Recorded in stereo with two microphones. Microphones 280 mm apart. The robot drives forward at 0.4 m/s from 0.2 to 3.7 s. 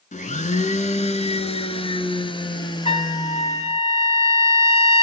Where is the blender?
30° left (ahead or behind), 0.9 m; by 3.8 s 15° left (ahead or behind), 1.8 m.